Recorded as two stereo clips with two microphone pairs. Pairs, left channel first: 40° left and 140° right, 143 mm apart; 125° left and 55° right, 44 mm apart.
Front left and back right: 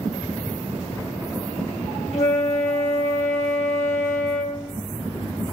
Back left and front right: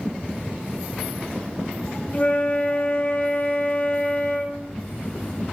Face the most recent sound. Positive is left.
turn(degrees=75)